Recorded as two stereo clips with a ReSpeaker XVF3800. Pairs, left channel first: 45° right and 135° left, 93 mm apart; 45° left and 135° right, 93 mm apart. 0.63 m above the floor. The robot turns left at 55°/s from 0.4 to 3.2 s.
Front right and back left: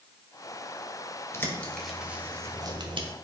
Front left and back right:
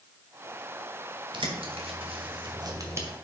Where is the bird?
105° right, 1.7 m; by 3.1 s 160° left, 1.7 m.